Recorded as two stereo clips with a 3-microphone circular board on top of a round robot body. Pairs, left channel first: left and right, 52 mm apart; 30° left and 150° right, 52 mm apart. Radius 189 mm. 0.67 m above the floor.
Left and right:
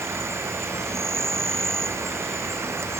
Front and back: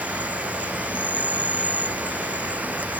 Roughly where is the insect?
Right.